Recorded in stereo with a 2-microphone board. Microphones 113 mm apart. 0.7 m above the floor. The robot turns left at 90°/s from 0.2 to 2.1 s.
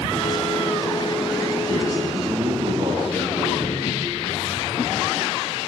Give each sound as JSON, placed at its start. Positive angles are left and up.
{"t": 1.7, "sound": "a man speaking", "azimuth_deg": -95, "distance_m": 7.0}